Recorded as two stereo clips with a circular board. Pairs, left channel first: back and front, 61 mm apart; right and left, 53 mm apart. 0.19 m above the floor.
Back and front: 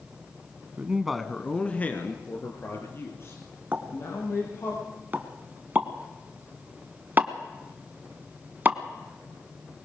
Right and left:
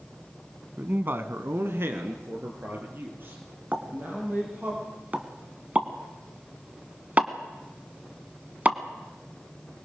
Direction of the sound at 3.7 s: 45° left.